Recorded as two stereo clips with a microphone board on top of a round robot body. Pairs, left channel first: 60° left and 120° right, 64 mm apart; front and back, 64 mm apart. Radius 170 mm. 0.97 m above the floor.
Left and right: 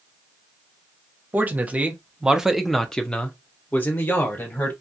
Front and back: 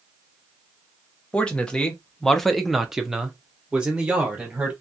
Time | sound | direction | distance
1.3 | a man speaking | 70° right | 1.0 m